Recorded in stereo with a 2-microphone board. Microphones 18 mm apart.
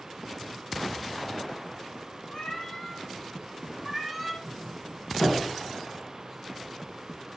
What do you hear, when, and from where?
2.3 s a cat meowing: 50° left (ahead or behind), 1.4 m; by 4.3 s 10° right (ahead or behind), 1.2 m
4.4 s a doorbell: 55° left (ahead or behind), 3.5 m